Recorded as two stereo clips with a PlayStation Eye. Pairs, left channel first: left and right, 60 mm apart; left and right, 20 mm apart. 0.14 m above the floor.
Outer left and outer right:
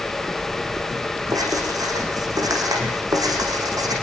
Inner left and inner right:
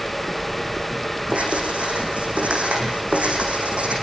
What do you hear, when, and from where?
1.3 s writing: 75° right (ahead or behind), 7 m